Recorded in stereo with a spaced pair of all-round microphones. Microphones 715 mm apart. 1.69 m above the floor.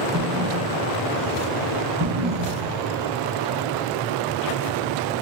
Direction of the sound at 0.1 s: 20° right (ahead or behind).